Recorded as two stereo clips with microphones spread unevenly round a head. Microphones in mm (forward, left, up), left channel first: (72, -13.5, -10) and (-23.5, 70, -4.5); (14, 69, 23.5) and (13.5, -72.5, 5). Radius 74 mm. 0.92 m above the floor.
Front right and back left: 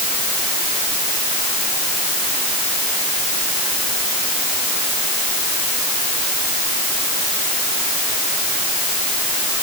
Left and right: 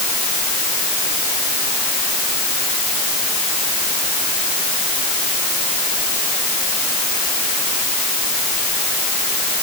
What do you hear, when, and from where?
Only background noise.